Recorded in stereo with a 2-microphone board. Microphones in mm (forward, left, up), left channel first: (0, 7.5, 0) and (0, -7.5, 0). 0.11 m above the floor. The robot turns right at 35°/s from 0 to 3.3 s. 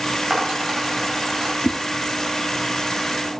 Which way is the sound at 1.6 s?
45° right (ahead or behind).